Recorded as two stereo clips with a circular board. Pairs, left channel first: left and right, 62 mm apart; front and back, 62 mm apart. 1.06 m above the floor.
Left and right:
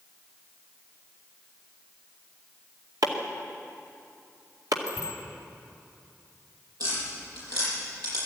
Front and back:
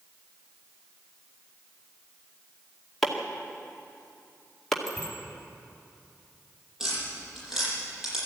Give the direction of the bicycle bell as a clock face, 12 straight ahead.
3 o'clock.